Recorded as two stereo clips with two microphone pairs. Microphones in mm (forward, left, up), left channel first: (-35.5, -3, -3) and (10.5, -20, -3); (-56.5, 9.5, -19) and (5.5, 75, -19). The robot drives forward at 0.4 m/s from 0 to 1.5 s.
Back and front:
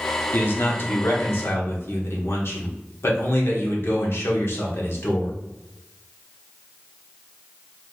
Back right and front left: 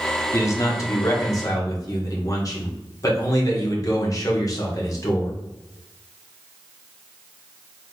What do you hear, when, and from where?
0.3 s a man speaking: 175° right, 0.8 m; by 5.3 s straight behind, 1.2 m